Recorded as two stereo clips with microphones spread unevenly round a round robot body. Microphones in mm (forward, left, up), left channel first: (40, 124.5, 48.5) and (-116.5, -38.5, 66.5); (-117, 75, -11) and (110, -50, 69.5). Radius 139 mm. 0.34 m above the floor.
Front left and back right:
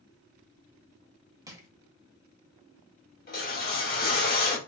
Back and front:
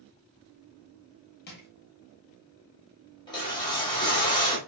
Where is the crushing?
150° left, 1.3 m.